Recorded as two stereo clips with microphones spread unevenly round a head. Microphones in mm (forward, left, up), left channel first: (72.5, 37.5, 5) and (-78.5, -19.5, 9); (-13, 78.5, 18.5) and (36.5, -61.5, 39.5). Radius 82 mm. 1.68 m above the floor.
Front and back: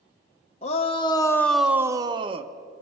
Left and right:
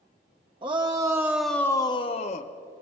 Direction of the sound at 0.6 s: 25° right.